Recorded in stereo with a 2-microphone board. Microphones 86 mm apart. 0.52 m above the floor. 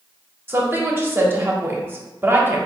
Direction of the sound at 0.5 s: 25° right (ahead or behind).